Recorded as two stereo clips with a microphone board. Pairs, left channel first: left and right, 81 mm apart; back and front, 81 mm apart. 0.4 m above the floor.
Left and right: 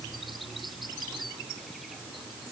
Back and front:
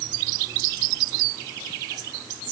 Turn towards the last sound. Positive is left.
No sound to turn to.